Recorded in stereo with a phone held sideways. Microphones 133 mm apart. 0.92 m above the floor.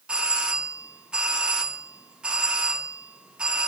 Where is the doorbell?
5° right (ahead or behind), 0.8 m.